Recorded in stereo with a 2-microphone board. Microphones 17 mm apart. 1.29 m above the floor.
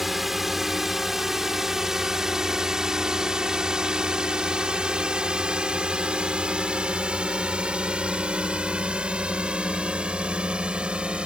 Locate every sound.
0.0 s a drone: 10° right (ahead or behind); by 11.3 s 80° right